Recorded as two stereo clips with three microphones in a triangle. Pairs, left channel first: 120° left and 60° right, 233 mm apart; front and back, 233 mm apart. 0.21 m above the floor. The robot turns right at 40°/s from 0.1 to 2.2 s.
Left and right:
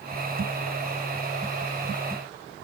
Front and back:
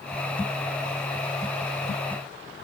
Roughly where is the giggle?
No giggle in this recording.